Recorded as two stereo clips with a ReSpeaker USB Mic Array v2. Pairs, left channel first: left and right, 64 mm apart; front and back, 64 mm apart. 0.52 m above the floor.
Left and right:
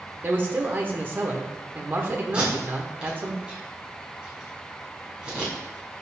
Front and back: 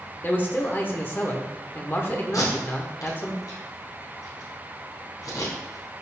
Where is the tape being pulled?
15° right, 3.5 m.